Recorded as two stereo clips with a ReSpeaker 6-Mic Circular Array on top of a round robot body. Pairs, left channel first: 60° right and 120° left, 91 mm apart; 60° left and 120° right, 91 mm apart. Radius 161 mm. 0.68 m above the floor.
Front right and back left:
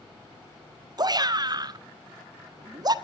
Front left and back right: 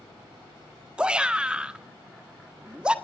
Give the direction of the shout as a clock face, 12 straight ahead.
7 o'clock.